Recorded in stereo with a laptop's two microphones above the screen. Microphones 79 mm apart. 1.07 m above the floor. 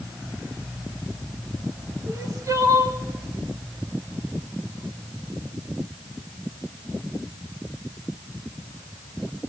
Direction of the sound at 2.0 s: 40° right (ahead or behind).